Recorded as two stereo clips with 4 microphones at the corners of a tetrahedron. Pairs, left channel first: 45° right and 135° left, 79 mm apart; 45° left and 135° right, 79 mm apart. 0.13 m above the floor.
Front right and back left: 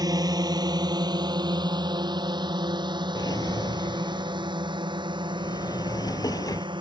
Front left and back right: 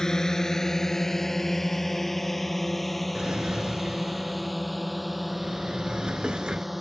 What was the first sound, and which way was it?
A drone, 125° left.